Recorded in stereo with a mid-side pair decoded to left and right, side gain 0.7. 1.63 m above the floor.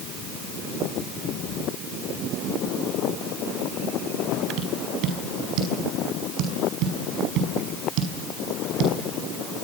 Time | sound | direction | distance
4.6 | tapping | 60° right | 6 m